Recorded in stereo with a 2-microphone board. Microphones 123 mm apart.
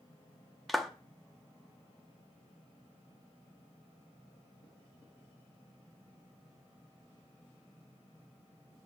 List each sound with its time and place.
0.7 s a clap: centre (ahead or behind), 0.8 m